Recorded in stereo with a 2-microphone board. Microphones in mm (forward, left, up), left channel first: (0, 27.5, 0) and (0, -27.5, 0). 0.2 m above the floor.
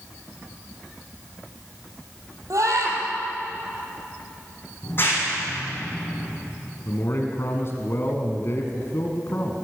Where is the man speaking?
45° left (ahead or behind), 2 m.